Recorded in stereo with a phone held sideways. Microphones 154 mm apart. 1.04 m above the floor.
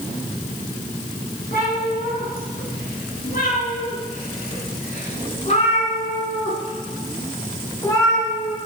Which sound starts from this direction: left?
A cat meowing, at 1.5 s.